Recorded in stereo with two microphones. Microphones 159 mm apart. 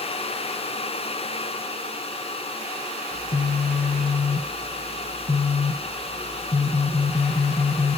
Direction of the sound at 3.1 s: 50° left (ahead or behind).